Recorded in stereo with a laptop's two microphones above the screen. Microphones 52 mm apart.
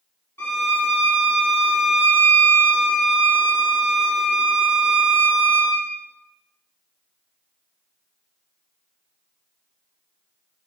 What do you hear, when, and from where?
0.4 s a violin: 55° left (ahead or behind), 2.5 m